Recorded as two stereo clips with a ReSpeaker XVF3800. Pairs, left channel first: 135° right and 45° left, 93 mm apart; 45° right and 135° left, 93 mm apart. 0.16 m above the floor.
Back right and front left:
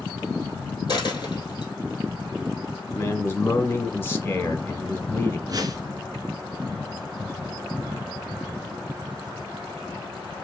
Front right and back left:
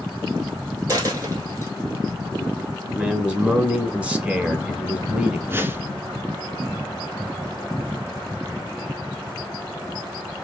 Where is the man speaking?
165° right, 1.1 m.